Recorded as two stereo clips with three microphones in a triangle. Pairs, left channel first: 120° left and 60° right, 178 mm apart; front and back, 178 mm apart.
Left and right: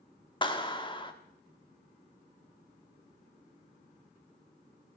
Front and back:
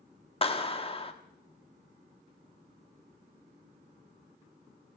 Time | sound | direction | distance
0.4 | a clap | 60° left | 1.2 m